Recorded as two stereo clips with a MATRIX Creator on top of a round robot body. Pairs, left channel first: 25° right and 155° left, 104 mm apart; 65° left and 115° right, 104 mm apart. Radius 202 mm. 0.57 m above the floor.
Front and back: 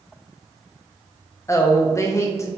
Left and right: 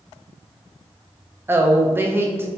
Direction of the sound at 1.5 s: 60° right.